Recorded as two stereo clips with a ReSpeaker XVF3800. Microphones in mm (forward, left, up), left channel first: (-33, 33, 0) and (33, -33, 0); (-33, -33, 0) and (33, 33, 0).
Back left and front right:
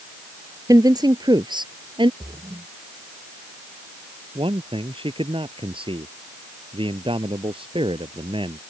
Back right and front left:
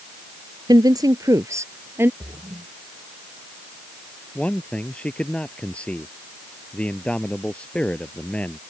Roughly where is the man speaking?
Ahead right.